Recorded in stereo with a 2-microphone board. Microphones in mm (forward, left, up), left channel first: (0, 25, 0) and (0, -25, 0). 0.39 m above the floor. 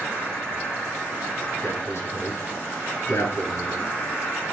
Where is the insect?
80° left, 4.5 m.